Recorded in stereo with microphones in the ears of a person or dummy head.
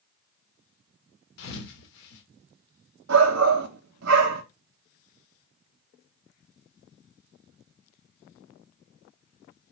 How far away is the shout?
About 1.2 m.